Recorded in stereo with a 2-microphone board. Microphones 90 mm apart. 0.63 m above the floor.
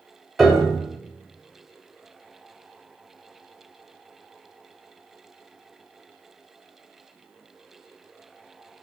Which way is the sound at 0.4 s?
Centre (ahead or behind).